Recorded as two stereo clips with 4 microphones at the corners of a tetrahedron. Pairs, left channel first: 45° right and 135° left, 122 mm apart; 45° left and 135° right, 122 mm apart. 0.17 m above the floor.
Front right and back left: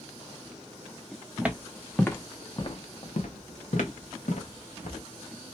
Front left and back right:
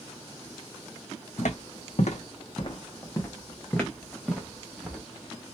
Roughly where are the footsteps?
Ahead left.